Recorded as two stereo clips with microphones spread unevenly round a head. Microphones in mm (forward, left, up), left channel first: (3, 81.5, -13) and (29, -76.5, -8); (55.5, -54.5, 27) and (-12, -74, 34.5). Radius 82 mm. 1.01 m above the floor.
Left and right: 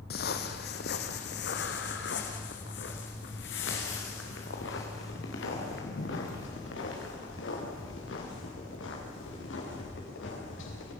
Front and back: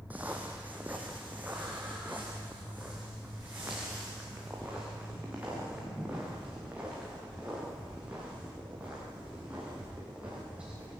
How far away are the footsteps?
About 2 m.